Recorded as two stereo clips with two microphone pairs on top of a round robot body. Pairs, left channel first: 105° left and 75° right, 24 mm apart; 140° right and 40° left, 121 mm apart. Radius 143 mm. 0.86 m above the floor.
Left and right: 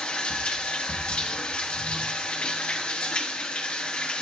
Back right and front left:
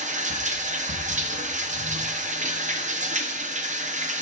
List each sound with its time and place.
0.0 s running water: 60° left, 0.9 m